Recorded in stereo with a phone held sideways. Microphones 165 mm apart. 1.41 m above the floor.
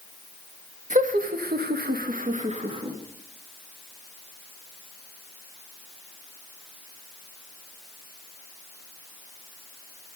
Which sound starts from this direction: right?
Laughter, at 0.9 s.